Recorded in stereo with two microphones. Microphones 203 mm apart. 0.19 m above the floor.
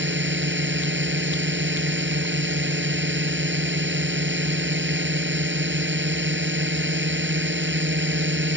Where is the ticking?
No ticking in this recording.